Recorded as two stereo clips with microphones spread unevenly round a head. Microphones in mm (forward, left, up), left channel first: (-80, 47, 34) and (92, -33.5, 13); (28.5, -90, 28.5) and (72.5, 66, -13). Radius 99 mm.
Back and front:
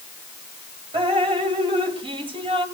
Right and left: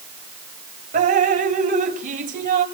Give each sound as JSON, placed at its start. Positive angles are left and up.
{"t": 0.9, "sound": "dripping", "azimuth_deg": 40, "distance_m": 2.0}